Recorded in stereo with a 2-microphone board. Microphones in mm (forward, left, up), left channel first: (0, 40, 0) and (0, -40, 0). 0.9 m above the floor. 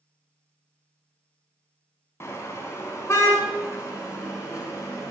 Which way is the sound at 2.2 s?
35° left (ahead or behind).